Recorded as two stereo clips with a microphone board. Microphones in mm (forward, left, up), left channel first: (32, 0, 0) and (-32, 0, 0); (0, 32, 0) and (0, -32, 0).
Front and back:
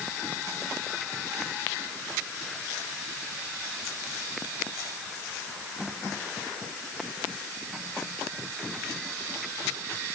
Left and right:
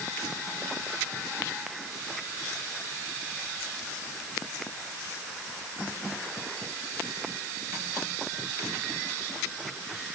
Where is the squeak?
I don't hear a squeak.